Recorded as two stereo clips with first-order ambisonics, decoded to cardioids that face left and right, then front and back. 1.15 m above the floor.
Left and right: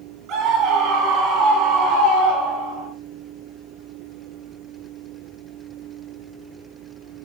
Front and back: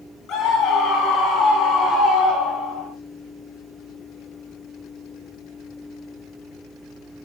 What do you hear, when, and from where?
0.3 s a scream: 50° right, 9.5 m; by 2.9 s 75° right, 10.5 m